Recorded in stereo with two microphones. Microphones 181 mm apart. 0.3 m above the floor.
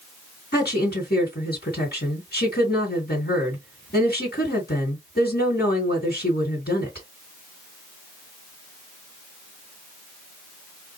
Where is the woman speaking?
60° left (ahead or behind), 3 m.